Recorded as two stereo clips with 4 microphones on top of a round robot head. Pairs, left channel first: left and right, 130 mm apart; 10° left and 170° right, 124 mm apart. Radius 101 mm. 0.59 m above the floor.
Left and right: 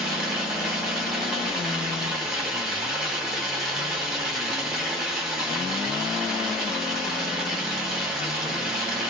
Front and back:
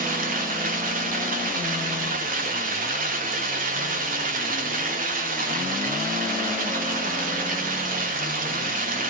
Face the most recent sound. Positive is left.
turn(degrees=-175)